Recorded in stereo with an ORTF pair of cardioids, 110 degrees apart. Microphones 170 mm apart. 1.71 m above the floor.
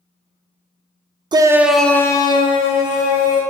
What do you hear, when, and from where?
1.3 s a shout: 25° right, 0.5 m; by 3.4 s 50° left, 1.1 m